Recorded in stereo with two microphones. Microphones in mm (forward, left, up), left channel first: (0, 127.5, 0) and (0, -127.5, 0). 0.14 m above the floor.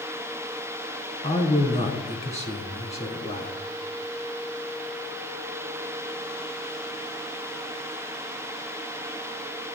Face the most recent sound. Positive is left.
turn(degrees=25)  # may be behind; listen again after turning